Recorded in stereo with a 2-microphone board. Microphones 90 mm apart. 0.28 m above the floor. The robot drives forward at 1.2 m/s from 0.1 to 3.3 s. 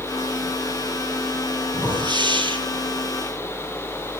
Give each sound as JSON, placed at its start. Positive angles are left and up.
{"t": 1.7, "sound": "a whoosh", "side_deg": -60, "distance_m": 4.5}